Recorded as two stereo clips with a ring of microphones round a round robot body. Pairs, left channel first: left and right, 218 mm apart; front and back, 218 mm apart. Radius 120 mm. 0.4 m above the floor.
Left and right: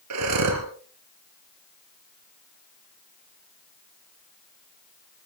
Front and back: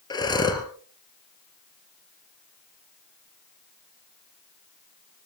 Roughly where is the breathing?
Right.